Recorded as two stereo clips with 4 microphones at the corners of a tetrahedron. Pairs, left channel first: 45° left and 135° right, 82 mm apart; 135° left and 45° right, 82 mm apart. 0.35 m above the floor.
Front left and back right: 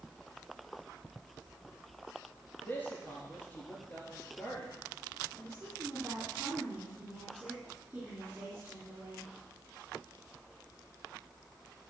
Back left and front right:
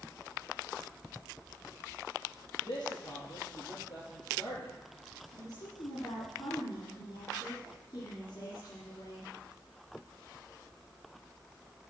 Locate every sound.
2.6 s a man speaking: 110° left, 6 m
5.3 s a woman speaking: 160° left, 4 m